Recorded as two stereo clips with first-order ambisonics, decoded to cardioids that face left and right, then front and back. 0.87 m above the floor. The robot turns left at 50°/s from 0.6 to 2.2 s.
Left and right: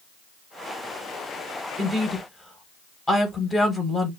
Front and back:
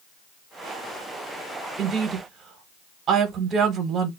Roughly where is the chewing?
No chewing in this recording.